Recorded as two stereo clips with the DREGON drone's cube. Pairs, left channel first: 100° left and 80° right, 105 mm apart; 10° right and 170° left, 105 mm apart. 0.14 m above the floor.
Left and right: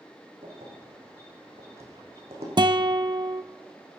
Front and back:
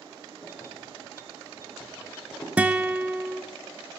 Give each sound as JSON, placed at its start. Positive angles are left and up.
{"t": 0.4, "sound": "keys jangling", "azimuth_deg": -70, "distance_m": 4.5}
{"t": 2.6, "sound": "a guitar", "azimuth_deg": -110, "distance_m": 0.6}